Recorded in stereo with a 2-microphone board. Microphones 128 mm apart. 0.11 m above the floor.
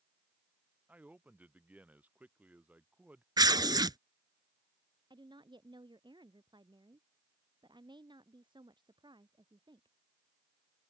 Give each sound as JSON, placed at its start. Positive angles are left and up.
{"t": 0.9, "sound": "a man speaking", "side_deg": -10}
{"t": 3.4, "sound": "tearing paper", "side_deg": -30}
{"t": 5.1, "sound": "a woman speaking", "side_deg": -35}